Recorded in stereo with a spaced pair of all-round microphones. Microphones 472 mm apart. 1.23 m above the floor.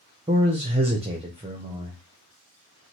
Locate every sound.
0.3 s a man speaking: 15° right (ahead or behind), 0.6 m